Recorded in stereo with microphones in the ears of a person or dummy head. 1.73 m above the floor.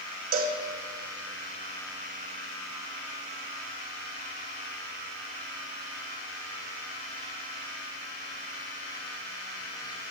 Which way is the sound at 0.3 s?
35° right (ahead or behind).